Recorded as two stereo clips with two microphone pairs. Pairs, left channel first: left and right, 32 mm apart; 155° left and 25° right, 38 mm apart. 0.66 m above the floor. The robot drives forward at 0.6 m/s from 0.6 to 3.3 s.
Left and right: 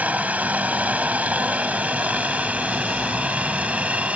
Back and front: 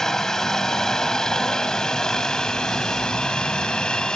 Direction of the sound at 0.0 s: 125° right.